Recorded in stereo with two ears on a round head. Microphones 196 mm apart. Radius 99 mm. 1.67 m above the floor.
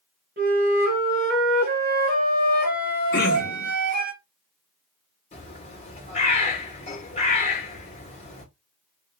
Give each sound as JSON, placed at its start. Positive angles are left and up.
{"t": 0.4, "sound": "a flute", "side_deg": -45, "distance_m": 1.8}
{"t": 3.1, "sound": "throat clearing", "side_deg": 45, "distance_m": 2.0}
{"t": 5.3, "sound": "a bird", "side_deg": 30, "distance_m": 2.5}